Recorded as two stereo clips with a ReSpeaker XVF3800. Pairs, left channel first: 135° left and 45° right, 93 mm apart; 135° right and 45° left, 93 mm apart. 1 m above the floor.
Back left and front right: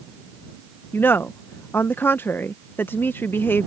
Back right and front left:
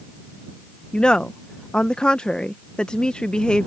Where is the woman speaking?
160° left.